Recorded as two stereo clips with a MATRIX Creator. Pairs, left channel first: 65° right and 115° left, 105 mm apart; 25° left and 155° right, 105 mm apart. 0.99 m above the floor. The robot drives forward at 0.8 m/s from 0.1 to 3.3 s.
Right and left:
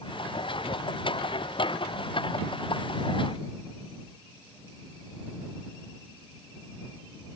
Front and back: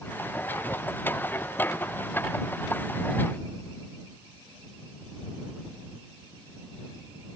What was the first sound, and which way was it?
Only background noise.